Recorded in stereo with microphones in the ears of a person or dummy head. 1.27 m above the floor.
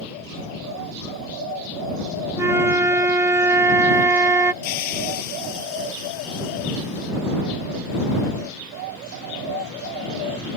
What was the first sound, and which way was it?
A flute, 20° right (ahead or behind).